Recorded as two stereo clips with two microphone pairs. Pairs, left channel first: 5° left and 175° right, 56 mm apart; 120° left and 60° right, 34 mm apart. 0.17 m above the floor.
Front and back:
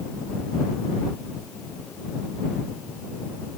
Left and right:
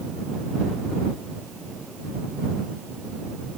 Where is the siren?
No siren in this recording.